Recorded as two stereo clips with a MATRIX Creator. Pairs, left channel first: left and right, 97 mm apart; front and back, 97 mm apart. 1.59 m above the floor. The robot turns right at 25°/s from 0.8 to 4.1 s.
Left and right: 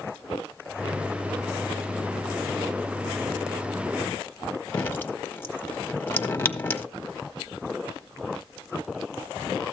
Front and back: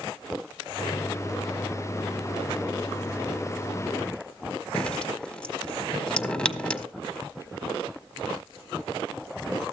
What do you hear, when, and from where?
4.7 s dripping: 70° left, 1.3 m